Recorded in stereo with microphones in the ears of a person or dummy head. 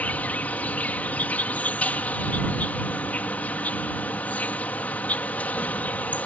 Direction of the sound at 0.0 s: 5° left (ahead or behind).